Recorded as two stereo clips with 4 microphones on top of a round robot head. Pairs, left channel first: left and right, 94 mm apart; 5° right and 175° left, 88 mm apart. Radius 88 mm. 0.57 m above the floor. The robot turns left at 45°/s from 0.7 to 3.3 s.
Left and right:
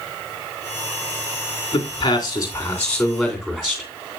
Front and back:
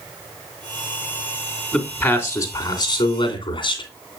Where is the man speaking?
65° left, 2.5 m; by 3.9 s 5° right, 2.5 m.